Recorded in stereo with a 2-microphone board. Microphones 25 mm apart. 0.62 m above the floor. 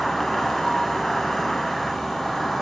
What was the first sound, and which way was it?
An insect, 20° left (ahead or behind).